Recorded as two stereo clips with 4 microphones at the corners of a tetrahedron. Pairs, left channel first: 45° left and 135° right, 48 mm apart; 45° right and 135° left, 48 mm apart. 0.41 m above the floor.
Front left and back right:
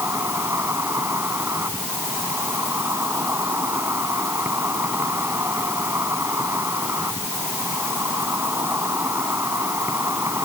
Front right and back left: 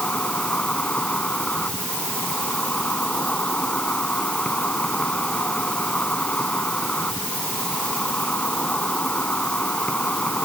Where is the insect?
110° right.